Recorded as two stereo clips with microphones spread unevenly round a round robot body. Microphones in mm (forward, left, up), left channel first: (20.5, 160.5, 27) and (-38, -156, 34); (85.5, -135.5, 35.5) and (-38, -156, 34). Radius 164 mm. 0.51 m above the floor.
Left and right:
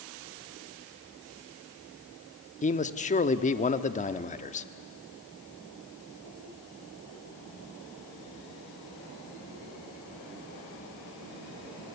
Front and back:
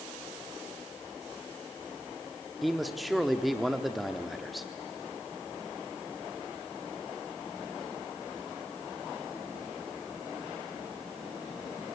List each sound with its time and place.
2.6 s a man speaking: 105° left, 0.8 m